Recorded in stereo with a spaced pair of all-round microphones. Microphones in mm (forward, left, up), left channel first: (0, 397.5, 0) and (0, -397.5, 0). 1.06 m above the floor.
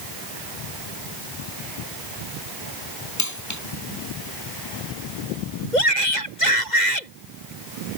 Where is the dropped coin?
20° left (ahead or behind).